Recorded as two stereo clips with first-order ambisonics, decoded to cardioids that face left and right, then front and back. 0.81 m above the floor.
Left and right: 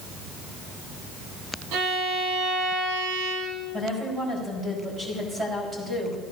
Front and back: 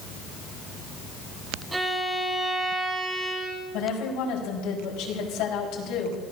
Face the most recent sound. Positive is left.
turn(degrees=-15)